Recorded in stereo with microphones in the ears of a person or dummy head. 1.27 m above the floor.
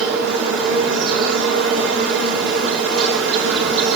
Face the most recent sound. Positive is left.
turn(degrees=-65)  # may be behind; listen again after turning